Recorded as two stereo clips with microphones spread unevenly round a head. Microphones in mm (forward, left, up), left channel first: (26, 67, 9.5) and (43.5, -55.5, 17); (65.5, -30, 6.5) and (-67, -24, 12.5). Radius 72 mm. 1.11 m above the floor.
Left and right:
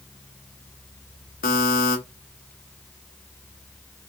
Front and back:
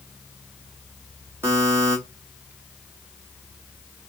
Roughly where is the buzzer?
Left.